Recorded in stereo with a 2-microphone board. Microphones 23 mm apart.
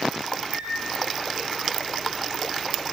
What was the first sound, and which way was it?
A microwave, 50° right (ahead or behind).